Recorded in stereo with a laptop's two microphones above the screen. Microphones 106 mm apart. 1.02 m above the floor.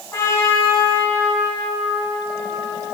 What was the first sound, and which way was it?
A trumpet, 30° left (ahead or behind).